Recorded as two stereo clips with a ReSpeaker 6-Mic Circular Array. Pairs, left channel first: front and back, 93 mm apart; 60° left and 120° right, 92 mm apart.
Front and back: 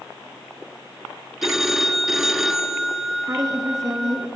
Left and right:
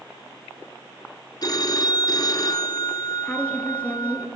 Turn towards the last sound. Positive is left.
turn(degrees=135)